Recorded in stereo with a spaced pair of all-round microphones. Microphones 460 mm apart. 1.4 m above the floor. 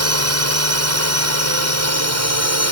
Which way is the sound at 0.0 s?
30° right (ahead or behind).